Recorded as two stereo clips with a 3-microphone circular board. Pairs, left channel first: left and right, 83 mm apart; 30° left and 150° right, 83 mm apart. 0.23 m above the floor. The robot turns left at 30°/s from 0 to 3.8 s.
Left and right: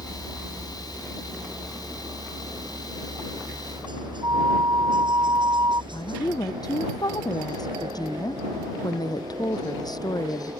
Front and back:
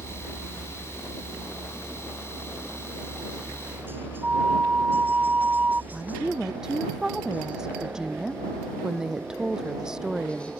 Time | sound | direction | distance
0.0 | a helicopter | 5° left | ?
4.2 | a flute | 85° right | ?
5.9 | a woman speaking | 130° left | ?